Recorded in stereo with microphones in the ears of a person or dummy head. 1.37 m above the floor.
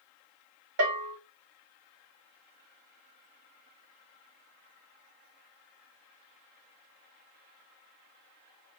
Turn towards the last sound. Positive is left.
turn(degrees=-65)  # may be behind; listen again after turning